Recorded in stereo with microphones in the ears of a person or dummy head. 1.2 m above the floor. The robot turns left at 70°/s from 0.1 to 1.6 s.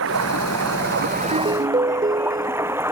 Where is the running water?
65° right; by 2.9 s 170° right.